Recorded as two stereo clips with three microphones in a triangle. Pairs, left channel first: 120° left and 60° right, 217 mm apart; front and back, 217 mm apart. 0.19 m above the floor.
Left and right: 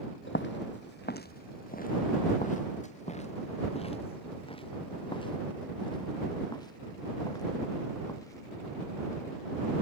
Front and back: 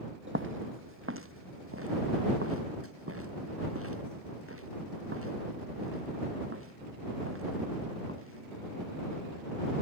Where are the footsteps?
150° left; by 9.2 s 165° right.